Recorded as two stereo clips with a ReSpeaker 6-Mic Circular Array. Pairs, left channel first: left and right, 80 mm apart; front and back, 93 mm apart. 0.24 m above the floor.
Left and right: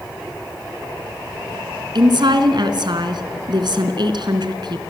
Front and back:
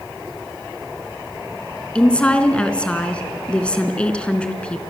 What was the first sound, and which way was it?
A woman speaking, 75° right.